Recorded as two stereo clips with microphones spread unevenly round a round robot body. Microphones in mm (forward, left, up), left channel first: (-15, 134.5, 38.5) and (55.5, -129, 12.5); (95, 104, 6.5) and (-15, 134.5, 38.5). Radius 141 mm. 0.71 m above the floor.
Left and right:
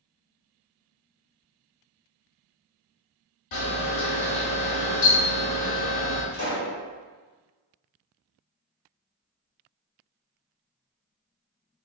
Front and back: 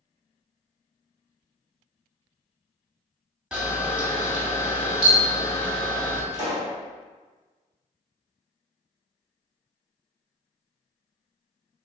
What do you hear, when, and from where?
3.5 s a camera shutter: 75° left, 1.1 m
6.3 s a pop: 150° left, 2.0 m